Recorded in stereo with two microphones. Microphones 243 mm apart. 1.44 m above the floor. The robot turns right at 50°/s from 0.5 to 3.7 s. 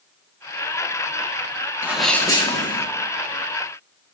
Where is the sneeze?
10° right, 2 m; by 2.9 s 40° left, 2 m.